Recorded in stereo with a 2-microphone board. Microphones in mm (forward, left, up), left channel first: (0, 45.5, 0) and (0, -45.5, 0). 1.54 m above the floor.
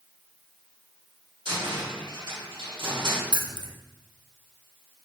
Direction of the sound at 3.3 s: 50° right (ahead or behind).